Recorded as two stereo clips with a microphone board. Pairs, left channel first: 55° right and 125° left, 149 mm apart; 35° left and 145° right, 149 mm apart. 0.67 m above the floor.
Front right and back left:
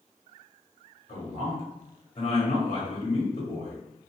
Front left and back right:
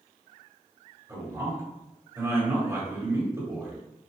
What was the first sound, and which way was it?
A man speaking, 90° right.